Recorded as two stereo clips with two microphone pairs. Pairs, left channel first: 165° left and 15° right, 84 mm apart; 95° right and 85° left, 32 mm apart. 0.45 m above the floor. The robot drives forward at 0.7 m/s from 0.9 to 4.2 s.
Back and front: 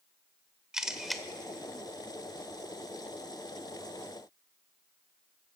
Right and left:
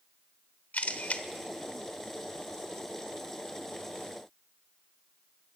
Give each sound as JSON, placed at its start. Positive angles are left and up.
{"t": 0.7, "sound": "a camera shutter", "azimuth_deg": -95, "distance_m": 1.1}